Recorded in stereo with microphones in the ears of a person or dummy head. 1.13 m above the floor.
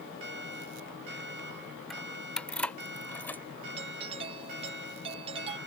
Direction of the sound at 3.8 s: 35° right (ahead or behind).